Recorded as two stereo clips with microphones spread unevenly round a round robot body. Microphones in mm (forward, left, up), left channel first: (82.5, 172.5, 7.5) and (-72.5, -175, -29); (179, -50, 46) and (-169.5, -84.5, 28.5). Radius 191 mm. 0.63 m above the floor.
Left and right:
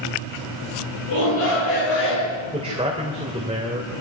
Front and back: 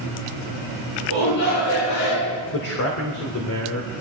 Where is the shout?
10° left, 9 m; by 2.4 s 15° left, 11 m.